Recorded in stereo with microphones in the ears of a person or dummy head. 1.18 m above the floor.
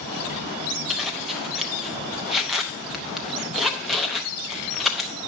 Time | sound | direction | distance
0.9 | a zipper | centre (ahead or behind) | 0.7 m